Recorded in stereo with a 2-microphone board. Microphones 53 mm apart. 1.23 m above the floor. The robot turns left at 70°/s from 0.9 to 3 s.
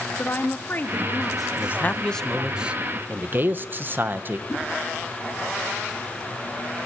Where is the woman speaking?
35° left, 2 m; by 2.5 s 80° right, 2 m.